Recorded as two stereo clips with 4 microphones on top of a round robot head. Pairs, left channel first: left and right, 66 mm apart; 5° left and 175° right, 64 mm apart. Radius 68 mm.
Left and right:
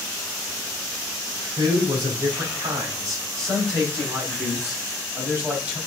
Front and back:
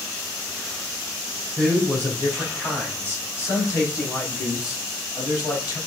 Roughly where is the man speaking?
Right.